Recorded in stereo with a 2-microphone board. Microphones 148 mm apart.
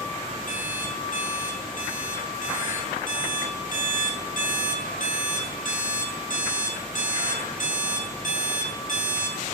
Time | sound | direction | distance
0.5 | an alarm clock | 60° left (ahead or behind) | 2.5 m